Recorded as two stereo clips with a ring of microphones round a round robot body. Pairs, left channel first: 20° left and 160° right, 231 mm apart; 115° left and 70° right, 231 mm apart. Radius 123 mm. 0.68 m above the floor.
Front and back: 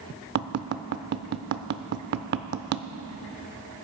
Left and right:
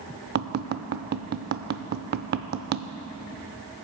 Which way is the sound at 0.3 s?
115° right.